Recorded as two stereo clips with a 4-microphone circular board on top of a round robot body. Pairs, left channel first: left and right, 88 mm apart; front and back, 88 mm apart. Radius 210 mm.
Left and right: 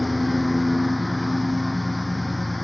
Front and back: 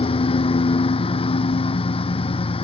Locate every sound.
0.0 s a lawn mower: straight ahead